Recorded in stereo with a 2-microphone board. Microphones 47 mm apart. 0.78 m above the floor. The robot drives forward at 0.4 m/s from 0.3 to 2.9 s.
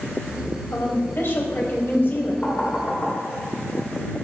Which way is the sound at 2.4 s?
35° left (ahead or behind).